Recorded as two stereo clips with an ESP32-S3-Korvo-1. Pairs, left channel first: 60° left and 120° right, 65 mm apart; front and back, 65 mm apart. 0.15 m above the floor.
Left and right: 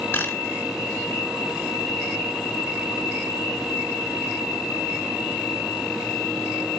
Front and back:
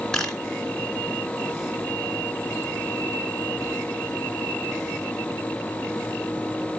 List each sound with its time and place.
0.1 s a camera shutter: 75° left, 1.9 m